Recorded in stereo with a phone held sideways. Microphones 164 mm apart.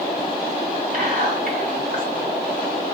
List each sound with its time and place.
0.9 s whispering: 55° right (ahead or behind), 1.7 m